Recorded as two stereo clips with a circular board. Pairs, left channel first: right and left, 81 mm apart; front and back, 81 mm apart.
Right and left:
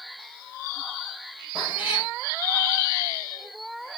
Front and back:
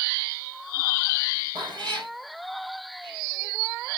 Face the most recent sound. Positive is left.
turn(degrees=165)